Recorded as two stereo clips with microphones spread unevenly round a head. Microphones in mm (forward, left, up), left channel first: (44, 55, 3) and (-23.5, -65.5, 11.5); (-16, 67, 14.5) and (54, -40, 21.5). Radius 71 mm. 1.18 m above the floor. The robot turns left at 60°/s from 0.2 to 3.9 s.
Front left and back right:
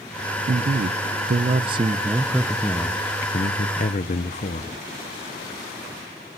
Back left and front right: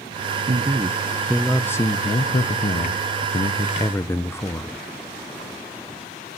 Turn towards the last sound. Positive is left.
turn(degrees=60)